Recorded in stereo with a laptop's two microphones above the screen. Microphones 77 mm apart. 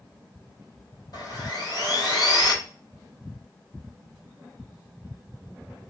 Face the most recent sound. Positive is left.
turn(degrees=55)  # may be behind; listen again after turning